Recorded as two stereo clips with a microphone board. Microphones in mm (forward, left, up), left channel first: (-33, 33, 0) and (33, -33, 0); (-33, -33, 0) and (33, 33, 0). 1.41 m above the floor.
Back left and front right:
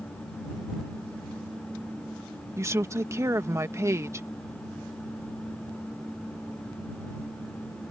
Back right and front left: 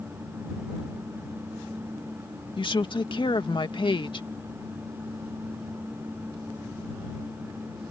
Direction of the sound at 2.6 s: 105° right.